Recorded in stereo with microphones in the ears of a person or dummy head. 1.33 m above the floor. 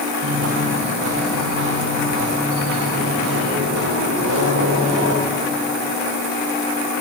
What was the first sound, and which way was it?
Footsteps, 70° right (ahead or behind).